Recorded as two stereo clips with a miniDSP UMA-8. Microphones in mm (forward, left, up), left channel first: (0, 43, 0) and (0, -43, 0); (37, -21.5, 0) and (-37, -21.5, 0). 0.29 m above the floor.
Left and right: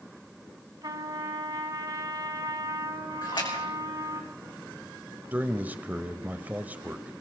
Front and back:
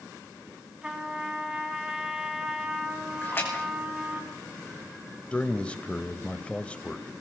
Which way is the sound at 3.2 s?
60° left.